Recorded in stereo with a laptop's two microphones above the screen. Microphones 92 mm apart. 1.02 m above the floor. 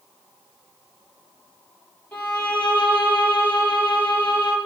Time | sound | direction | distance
2.1 | a violin | 15° left (ahead or behind) | 6.5 m